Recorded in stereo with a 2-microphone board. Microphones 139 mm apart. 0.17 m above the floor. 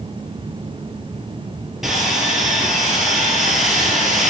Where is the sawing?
Centre (ahead or behind), 2.5 m.